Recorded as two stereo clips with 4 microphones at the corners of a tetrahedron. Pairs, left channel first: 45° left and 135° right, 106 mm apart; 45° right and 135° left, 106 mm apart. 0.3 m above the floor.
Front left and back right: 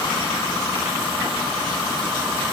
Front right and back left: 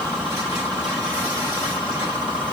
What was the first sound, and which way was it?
Only background noise.